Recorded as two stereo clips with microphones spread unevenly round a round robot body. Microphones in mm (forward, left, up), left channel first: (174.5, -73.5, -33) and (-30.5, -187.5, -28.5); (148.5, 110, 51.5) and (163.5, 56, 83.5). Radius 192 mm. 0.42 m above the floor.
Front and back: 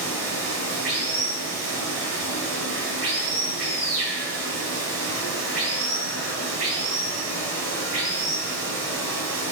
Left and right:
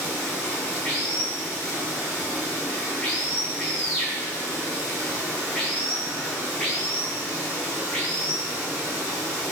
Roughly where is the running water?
Behind.